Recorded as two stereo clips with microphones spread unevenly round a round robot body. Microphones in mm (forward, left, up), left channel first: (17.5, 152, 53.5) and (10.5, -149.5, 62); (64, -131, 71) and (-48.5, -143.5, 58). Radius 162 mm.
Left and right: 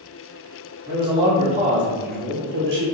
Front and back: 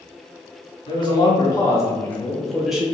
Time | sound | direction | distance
0.9 | a man speaking | 20° right | 1.4 m